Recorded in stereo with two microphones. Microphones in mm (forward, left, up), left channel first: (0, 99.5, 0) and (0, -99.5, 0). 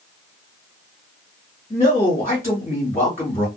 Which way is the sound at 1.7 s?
40° left (ahead or behind).